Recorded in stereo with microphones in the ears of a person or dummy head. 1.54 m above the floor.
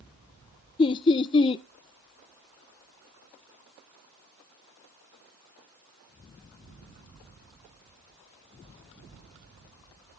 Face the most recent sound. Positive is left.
turn(degrees=25)  # may be behind; listen again after turning